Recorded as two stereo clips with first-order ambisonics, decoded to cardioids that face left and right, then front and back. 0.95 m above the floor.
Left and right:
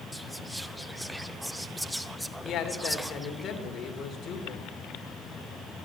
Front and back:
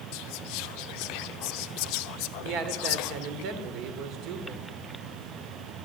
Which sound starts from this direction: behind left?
A man speaking, at 2.4 s.